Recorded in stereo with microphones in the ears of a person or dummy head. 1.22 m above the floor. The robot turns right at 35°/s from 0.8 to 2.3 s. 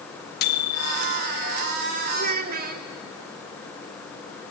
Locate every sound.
0.4 s a microwave: 55° left (ahead or behind), 1.8 m; by 1.2 s 70° left (ahead or behind), 1.8 m
2.1 s a child speaking: 40° right (ahead or behind), 1.1 m; by 2.9 s 45° right (ahead or behind), 1.1 m